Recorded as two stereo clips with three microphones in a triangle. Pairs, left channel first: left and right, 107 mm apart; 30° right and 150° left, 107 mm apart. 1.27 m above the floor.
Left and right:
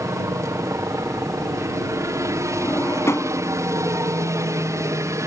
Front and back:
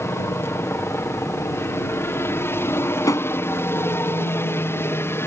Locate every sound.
0.0 s a helicopter: 70° right
2.6 s a drawer: 30° left